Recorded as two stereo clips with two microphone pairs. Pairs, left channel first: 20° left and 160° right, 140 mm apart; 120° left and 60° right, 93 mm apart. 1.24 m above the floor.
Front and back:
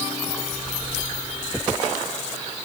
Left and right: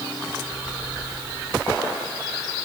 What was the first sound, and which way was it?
Only background noise.